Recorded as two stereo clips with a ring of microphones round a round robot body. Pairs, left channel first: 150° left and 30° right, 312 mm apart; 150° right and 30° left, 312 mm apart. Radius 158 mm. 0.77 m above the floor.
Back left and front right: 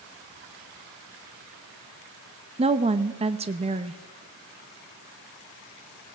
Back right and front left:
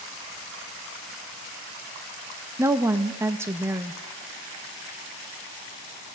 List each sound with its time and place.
2.6 s a woman speaking: 35° right, 0.7 m